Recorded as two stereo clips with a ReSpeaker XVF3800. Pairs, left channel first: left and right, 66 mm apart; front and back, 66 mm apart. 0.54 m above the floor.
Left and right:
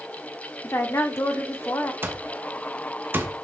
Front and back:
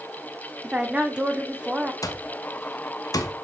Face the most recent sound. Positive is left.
turn(degrees=-30)